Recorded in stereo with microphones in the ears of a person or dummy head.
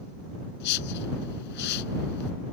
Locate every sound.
0.6 s a whoosh: 60° left (ahead or behind)